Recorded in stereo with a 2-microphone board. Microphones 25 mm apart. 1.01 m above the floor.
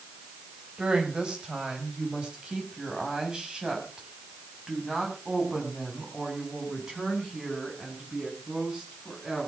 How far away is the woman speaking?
About 5 m.